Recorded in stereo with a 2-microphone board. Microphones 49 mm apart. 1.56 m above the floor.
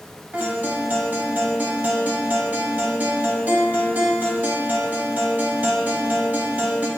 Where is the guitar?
35° right (ahead or behind), 0.6 m.